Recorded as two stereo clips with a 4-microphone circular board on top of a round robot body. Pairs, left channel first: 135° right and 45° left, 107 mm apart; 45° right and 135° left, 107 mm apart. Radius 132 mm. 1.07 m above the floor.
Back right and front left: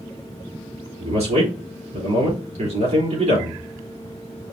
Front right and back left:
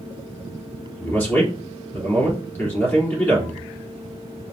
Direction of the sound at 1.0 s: 30° left.